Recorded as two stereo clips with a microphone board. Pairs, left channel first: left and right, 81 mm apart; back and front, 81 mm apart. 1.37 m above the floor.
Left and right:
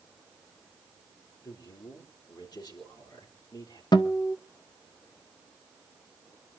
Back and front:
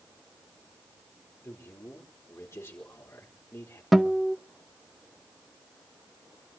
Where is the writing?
I don't hear writing.